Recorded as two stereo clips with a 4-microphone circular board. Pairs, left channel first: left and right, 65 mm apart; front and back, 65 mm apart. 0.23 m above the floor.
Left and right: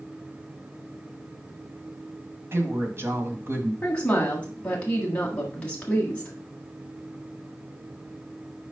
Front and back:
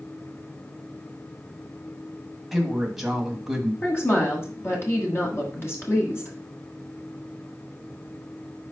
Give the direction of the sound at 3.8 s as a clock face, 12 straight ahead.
11 o'clock.